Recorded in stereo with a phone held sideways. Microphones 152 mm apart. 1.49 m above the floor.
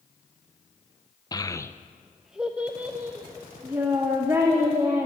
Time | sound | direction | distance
1.3 | a child speaking | 25° left (ahead or behind) | 0.5 m